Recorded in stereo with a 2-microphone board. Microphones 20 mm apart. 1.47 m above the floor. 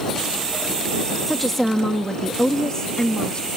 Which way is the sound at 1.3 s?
5° left (ahead or behind).